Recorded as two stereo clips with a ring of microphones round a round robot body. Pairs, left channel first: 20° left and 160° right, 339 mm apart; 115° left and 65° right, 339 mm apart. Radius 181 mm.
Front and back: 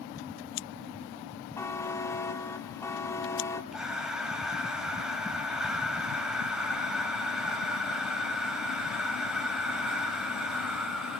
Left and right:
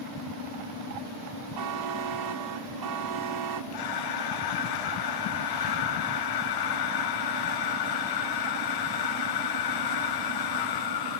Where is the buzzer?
60° right, 1.7 m.